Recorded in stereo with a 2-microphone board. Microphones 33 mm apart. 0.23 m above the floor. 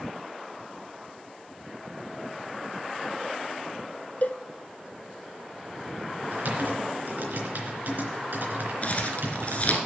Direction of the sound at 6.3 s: 65° right (ahead or behind).